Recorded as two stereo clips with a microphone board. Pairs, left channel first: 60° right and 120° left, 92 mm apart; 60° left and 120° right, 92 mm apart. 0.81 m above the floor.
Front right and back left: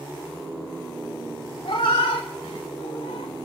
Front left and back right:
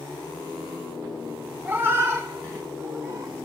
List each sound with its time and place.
1.6 s a cat meowing: 55° right, 1.1 m; by 3.4 s 65° right, 2.0 m